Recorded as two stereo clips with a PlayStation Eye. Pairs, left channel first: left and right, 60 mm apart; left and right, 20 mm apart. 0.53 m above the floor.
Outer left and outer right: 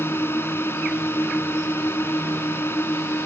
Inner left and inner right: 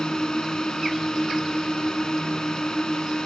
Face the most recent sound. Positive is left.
turn(degrees=35)  # may be behind; listen again after turning